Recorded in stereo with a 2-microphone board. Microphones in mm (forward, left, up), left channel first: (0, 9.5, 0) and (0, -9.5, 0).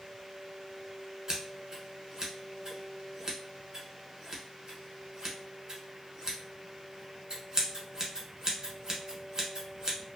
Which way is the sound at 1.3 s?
35° right (ahead or behind).